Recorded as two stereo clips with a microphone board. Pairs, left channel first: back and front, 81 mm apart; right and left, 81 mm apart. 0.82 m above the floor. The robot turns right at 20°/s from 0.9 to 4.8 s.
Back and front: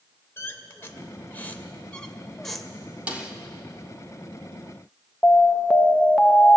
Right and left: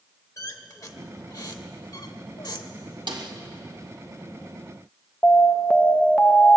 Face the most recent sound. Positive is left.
turn(degrees=-130)